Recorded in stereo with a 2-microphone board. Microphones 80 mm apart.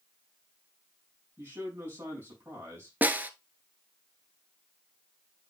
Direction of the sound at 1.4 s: 30° right (ahead or behind).